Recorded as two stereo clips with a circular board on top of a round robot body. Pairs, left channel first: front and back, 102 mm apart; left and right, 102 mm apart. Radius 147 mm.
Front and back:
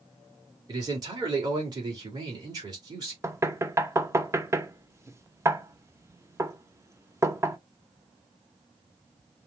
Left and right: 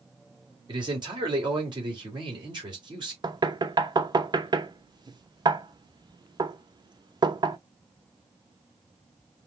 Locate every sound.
0.7 s a man speaking: 130° right, 2.5 m
3.2 s knocking: 125° right, 1.0 m